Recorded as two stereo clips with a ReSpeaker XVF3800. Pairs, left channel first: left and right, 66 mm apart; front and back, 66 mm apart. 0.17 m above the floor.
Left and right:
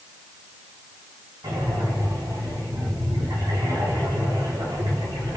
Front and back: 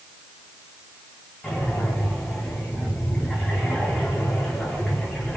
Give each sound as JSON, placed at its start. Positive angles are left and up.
{"t": 1.4, "sound": "breathing", "azimuth_deg": -85, "distance_m": 9.5}